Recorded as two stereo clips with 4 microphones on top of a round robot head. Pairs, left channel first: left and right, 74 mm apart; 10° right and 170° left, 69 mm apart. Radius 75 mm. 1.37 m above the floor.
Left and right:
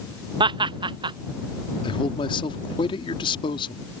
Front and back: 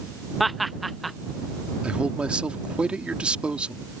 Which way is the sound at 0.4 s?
100° right.